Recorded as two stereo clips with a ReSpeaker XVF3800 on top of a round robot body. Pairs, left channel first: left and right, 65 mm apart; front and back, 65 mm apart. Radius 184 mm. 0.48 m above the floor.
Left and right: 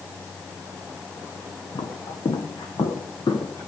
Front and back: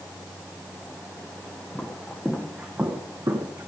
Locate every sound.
1.8 s footsteps: 80° left, 1.8 m; by 3.7 s 140° left, 1.4 m